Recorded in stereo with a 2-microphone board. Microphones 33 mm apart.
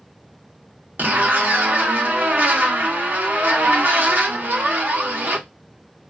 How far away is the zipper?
About 1.2 m.